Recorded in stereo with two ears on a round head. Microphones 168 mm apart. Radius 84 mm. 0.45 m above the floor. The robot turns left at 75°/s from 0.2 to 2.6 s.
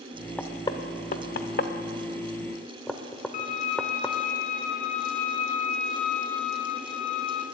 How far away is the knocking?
About 0.7 m.